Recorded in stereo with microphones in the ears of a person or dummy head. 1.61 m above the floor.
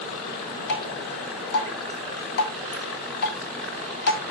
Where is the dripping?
65° left (ahead or behind), 6 m.